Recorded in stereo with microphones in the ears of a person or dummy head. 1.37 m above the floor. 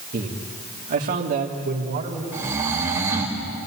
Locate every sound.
0.1 s a man speaking: 50° right (ahead or behind), 2.5 m; by 2.2 s 55° right (ahead or behind), 3.5 m
2.3 s snoring: 15° right (ahead or behind), 4 m